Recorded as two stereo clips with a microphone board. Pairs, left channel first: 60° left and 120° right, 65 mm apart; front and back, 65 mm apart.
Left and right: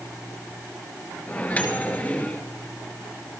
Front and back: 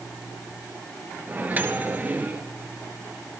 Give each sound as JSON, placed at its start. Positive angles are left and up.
{"t": 1.3, "sound": "a microwave", "azimuth_deg": 125, "distance_m": 1.6}